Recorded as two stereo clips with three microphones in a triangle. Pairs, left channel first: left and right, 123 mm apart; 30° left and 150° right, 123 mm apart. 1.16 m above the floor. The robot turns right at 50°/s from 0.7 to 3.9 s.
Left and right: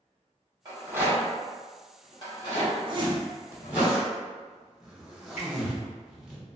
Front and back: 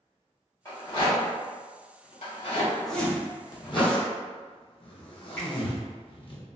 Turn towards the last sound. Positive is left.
turn(degrees=105)